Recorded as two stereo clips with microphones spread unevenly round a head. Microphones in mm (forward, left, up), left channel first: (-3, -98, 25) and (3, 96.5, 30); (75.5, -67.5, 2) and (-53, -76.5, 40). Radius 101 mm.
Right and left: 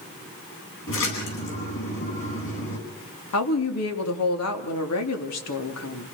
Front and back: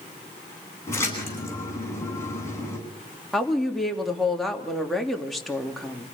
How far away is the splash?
About 10 m.